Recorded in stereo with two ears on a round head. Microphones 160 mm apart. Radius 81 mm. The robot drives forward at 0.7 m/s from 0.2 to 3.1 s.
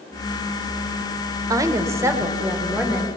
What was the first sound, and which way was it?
A woman speaking, 20° right (ahead or behind).